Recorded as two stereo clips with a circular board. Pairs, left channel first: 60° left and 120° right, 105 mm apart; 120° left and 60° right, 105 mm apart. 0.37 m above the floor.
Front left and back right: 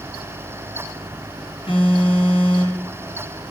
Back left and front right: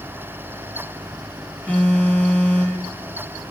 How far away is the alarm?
About 4 m.